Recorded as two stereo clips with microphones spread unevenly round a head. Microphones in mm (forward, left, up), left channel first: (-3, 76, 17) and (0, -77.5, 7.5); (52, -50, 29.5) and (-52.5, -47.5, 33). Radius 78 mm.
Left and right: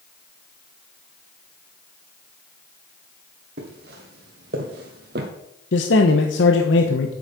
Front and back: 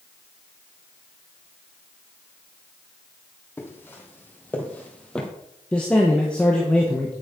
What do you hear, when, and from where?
3.6 s footsteps: 70° right, 3 m; by 5.3 s 85° right, 2 m
5.7 s a man speaking: 80° left, 1.1 m